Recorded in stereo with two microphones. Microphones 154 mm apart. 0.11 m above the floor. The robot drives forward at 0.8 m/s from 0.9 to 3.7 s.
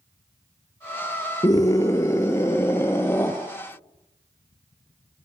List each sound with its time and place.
1.4 s a scream: 25° left (ahead or behind), 1.5 m; by 3.3 s 15° left (ahead or behind), 2.5 m